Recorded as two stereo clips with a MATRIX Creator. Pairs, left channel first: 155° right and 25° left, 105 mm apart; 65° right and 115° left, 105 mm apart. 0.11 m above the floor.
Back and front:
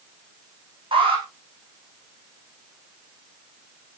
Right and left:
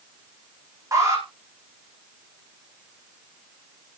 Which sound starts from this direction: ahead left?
An alarm, at 0.9 s.